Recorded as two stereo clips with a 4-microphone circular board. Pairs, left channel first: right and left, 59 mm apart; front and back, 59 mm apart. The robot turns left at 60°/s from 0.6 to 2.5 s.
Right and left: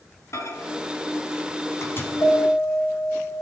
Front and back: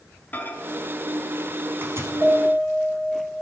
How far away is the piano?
About 6 m.